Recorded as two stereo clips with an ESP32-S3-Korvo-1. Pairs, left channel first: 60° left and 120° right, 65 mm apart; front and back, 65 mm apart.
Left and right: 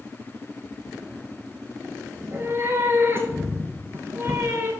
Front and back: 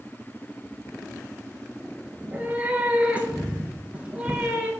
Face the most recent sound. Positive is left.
turn(degrees=-125)